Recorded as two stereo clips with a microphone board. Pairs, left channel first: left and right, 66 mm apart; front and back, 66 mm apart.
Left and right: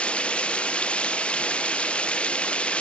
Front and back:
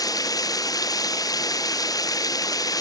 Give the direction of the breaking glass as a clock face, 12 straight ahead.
No breaking glass in this recording.